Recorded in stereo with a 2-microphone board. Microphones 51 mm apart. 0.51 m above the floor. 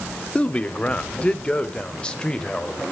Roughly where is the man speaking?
Left.